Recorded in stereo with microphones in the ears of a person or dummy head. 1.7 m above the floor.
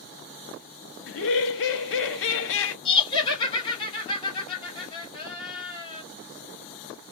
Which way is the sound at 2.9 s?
35° left (ahead or behind).